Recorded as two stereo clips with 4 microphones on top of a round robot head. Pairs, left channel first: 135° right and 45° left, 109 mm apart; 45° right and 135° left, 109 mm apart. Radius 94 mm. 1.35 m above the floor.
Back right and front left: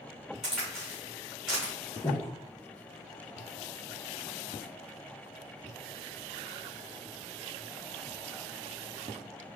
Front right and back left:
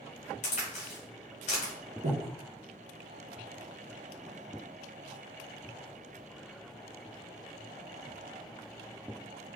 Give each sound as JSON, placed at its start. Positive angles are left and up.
{"t": 0.4, "sound": "a crack", "azimuth_deg": -40, "distance_m": 0.8}
{"t": 2.0, "sound": "breathing", "azimuth_deg": 150, "distance_m": 0.6}